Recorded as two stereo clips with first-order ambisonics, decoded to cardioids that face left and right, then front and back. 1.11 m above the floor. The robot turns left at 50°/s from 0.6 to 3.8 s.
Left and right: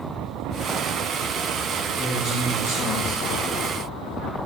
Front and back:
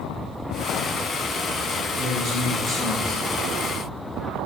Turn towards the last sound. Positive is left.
turn(degrees=40)